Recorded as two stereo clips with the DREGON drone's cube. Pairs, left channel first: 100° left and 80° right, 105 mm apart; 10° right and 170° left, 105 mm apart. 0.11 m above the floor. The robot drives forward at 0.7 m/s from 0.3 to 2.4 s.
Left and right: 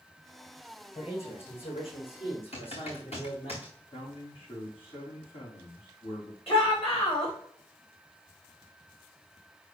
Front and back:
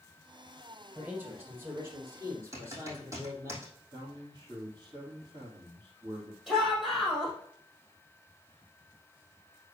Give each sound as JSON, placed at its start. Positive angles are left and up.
{"t": 0.9, "sound": "a man speaking", "azimuth_deg": 95, "distance_m": 4.0}
{"t": 2.5, "sound": "typing on a keyboard", "azimuth_deg": 105, "distance_m": 4.0}
{"t": 3.9, "sound": "a man speaking", "azimuth_deg": 120, "distance_m": 3.5}
{"t": 6.5, "sound": "a shout", "azimuth_deg": 80, "distance_m": 5.0}